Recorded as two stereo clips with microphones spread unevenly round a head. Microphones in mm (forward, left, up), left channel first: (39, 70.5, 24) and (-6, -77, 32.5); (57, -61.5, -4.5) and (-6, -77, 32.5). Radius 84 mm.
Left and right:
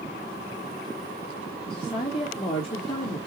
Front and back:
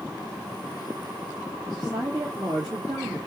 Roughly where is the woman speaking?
Behind left.